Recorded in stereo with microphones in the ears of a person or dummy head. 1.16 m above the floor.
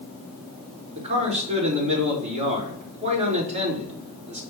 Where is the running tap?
I don't hear a running tap.